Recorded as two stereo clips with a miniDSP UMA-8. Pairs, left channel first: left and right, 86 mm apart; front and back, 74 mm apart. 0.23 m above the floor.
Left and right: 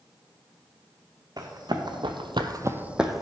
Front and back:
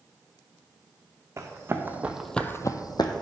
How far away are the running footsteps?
About 1.2 m.